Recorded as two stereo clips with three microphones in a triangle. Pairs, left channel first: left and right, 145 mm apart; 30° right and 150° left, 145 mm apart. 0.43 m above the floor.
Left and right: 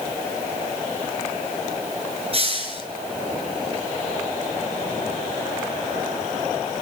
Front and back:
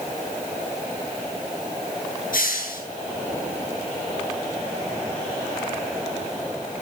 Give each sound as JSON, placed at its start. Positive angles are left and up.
{"t": 2.3, "sound": "a hiss", "azimuth_deg": -40, "distance_m": 8.5}